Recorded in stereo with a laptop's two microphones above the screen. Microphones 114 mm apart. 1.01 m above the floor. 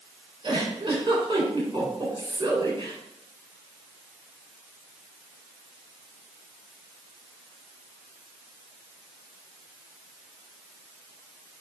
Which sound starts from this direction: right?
A giggle, at 0.4 s.